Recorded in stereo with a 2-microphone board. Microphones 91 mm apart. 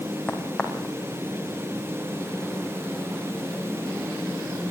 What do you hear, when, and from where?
0.3 s a crack: 10° left (ahead or behind), 5 m